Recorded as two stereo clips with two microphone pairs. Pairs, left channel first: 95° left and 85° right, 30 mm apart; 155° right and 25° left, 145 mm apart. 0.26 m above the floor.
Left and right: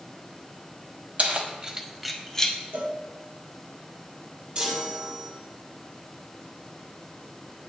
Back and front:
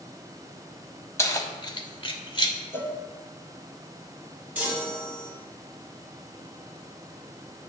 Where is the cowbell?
85° right, 0.8 m.